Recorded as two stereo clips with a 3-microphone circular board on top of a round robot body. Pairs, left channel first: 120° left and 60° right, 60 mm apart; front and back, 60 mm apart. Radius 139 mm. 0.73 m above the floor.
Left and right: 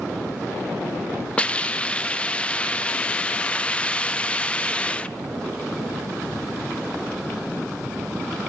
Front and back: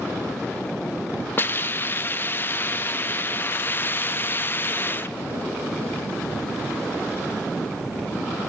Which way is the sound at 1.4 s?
50° left.